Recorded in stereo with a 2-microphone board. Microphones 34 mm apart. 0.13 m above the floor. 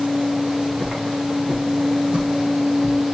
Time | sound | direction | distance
0.5 | footsteps | 25° right (ahead or behind) | 6.5 m